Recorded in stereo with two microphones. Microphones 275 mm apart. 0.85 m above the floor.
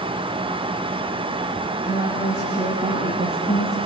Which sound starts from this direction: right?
A woman speaking, at 1.9 s.